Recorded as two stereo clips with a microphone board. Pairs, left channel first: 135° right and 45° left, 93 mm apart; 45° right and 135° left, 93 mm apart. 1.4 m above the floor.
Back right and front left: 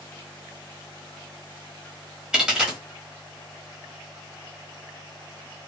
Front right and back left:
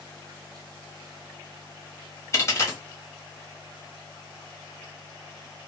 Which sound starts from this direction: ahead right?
A dropped coin, at 2.3 s.